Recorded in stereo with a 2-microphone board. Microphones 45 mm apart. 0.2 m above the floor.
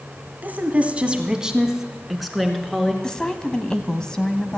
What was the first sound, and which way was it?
A woman speaking, 40° right (ahead or behind).